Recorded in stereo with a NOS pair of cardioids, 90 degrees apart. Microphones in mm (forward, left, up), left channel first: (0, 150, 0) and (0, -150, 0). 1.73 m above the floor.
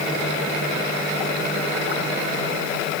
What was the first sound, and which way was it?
Only background noise.